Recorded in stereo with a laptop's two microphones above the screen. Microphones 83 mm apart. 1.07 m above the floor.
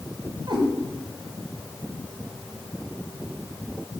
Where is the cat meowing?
65° right (ahead or behind), 1.7 m.